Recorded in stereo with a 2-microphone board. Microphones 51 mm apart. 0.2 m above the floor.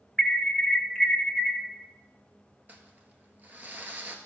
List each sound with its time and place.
0.2 s an alarm: 10° left (ahead or behind), 1.6 m
2.7 s crumpling: 35° right (ahead or behind), 1.3 m